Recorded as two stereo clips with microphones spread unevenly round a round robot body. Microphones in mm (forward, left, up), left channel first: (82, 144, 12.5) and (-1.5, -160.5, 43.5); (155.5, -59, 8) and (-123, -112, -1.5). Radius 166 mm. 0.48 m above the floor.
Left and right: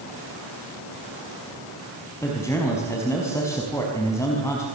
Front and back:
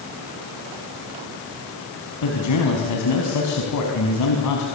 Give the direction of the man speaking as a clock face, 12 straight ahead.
12 o'clock.